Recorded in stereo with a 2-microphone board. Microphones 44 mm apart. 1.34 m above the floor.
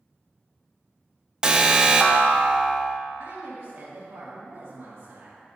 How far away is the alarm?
About 0.6 m.